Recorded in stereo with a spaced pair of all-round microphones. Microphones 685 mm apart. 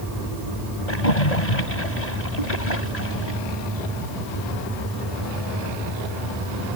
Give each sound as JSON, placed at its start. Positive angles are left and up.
{"t": 0.9, "sound": "a splash", "side_deg": 75}